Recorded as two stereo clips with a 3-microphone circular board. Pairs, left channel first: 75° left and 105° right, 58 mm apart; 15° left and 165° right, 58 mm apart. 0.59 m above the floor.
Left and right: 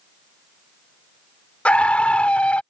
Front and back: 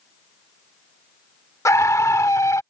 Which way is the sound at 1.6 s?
10° left.